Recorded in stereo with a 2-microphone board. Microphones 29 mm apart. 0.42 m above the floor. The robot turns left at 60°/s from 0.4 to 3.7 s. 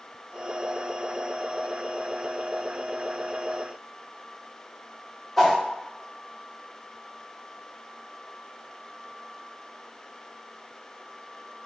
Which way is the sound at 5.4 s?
10° left (ahead or behind).